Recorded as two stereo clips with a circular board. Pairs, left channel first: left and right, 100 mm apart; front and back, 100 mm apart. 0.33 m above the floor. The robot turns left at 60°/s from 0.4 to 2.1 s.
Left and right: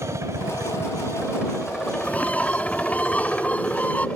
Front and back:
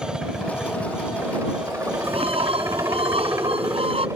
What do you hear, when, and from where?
0.0 s a helicopter: 100° right; by 4.2 s 155° left
2.0 s a bird: 170° left; by 4.1 s 165° left